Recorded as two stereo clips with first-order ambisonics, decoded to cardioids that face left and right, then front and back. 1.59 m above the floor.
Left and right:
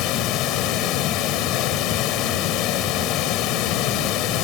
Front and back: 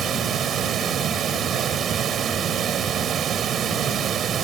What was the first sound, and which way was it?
Running water, 120° left.